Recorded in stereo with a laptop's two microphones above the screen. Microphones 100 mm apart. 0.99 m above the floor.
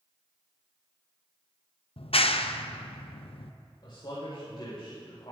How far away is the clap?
About 0.5 m.